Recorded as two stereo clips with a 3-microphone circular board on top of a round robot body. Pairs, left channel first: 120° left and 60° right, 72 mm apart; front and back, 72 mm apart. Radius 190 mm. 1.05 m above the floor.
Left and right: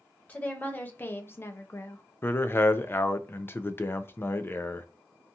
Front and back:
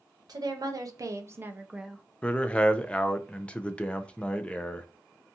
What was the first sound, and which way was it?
A woman speaking, 175° right.